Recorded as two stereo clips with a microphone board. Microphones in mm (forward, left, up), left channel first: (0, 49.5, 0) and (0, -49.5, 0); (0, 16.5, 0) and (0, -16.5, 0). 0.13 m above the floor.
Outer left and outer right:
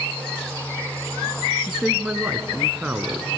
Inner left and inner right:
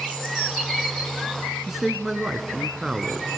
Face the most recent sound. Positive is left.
turn(degrees=-10)  # may be behind; listen again after turning